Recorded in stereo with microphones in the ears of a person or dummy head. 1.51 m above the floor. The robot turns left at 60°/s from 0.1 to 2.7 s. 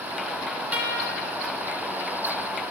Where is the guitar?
Straight ahead, 3.5 m; by 1.2 s 30° right, 3.5 m.